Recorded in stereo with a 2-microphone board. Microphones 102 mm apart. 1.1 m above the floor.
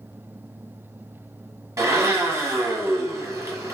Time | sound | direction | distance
1.8 | a blender | 30° right (ahead or behind) | 0.8 m